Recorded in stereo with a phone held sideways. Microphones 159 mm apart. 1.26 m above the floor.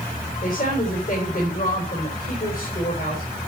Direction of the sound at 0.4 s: 65° left (ahead or behind).